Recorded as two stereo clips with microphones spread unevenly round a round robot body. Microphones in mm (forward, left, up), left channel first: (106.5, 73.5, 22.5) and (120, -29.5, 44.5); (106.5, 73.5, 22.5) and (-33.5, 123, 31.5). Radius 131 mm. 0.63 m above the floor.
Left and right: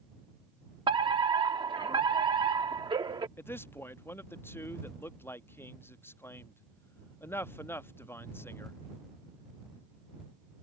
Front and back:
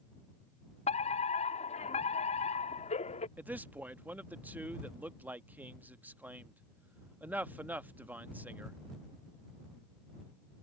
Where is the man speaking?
85° left.